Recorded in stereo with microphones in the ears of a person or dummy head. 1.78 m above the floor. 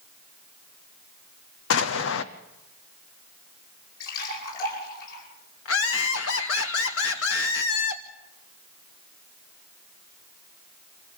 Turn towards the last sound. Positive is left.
turn(degrees=70)  # may be behind; listen again after turning